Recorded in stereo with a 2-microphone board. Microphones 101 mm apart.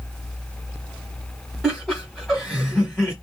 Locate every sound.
1.6 s laughter: centre (ahead or behind), 1.8 m